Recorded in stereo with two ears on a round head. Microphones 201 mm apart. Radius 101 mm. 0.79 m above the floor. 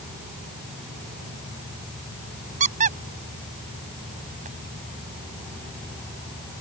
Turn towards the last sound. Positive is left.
turn(degrees=-35)  # may be behind; listen again after turning